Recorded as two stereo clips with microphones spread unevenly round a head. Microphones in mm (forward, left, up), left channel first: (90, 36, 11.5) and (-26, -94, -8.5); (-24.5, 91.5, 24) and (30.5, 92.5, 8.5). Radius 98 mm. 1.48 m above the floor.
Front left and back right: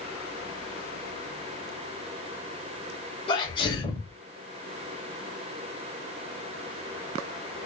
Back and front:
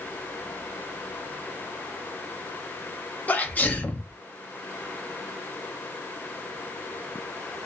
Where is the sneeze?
120° left, 1.5 m.